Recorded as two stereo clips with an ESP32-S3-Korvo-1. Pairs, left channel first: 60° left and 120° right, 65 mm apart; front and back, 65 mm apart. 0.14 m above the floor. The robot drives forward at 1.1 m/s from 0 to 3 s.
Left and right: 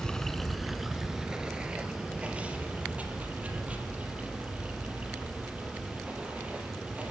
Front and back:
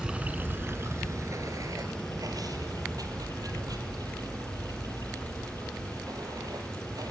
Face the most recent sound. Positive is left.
turn(degrees=170)